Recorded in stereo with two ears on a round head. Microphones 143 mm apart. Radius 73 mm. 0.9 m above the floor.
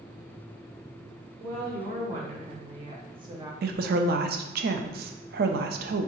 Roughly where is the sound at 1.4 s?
Right.